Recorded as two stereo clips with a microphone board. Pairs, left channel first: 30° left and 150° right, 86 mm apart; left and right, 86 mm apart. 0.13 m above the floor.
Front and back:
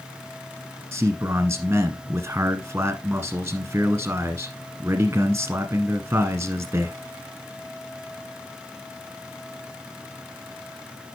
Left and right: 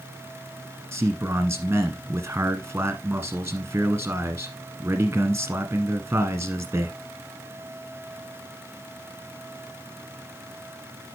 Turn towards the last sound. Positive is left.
turn(degrees=-125)